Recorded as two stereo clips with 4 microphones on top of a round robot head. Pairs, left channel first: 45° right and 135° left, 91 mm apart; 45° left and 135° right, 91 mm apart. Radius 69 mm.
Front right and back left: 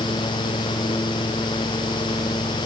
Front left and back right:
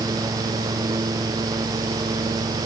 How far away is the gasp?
No gasp in this recording.